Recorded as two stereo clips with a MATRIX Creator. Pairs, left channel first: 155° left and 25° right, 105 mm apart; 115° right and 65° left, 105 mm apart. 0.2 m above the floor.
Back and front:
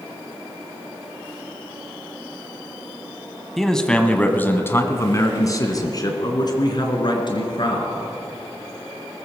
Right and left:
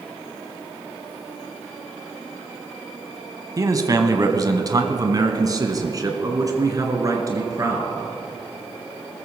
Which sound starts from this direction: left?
A man speaking, at 3.6 s.